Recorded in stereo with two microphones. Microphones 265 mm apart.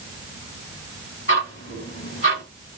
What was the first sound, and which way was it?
Ticking, 55° left (ahead or behind).